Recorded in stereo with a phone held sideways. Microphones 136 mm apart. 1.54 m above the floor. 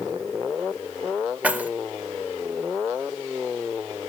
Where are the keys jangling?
10° right (ahead or behind), 0.6 m.